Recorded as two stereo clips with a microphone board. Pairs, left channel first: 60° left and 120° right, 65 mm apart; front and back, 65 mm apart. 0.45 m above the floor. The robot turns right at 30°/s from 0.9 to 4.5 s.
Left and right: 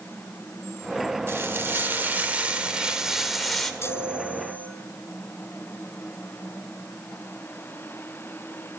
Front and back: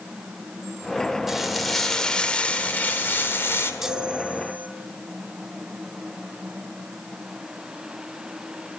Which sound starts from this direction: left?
A chime, at 3.8 s.